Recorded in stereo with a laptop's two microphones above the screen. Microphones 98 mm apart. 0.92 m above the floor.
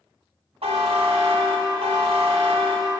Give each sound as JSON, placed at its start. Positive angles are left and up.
{"t": 0.6, "sound": "a buzzer", "side_deg": -75, "distance_m": 1.3}